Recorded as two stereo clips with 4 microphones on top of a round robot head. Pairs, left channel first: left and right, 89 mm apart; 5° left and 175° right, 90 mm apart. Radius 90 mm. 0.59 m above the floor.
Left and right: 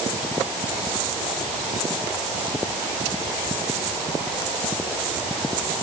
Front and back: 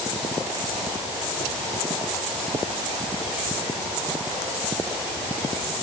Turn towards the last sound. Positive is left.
No sound to turn to.